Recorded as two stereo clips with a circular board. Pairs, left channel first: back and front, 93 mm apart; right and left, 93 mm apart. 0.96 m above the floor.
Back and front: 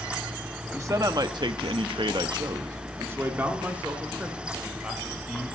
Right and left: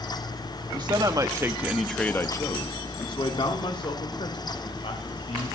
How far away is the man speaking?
About 1.8 m.